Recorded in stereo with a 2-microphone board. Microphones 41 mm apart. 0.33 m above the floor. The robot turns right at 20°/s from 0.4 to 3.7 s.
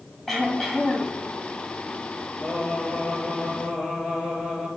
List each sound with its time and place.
0.3 s throat clearing: 5° left (ahead or behind), 2.5 m; by 1.2 s 5° right (ahead or behind), 2.5 m
2.4 s singing: 5° right (ahead or behind), 3.5 m; by 4.7 s 30° right (ahead or behind), 3.5 m